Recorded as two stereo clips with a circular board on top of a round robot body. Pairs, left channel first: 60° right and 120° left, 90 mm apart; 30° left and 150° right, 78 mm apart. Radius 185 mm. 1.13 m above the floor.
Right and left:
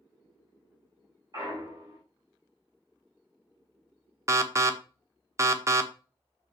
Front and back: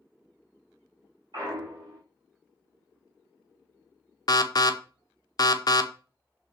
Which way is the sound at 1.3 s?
170° left.